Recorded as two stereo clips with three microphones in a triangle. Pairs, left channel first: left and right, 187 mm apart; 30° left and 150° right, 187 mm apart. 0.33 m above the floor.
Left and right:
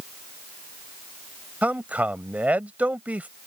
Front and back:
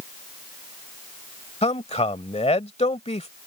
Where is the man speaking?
10° right.